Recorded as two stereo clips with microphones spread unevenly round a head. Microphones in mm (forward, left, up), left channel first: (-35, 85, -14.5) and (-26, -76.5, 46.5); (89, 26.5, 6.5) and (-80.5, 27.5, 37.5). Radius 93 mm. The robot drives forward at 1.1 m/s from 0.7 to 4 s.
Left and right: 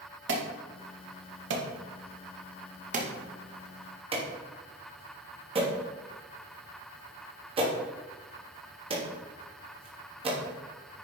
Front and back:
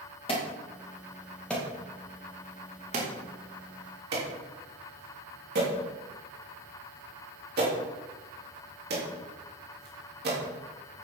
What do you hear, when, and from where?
0.3 s an alarm: 65° right, 2 m; by 10.4 s 145° right, 3.5 m